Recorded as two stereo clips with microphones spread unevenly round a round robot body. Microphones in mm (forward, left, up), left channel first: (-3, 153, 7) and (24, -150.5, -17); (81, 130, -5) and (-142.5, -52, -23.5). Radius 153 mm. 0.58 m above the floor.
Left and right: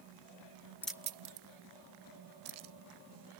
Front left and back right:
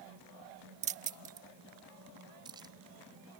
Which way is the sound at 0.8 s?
Straight behind.